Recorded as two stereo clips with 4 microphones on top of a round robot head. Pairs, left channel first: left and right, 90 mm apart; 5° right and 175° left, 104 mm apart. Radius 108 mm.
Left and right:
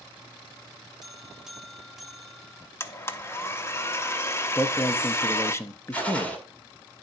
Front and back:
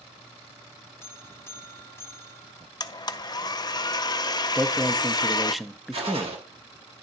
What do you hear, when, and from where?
1.0 s a buzzer: 10° right, 1.0 m
2.8 s a blender: 35° left, 0.6 m
4.5 s a man speaking: 90° left, 0.7 m
5.9 s a gunshot: 165° left, 1.8 m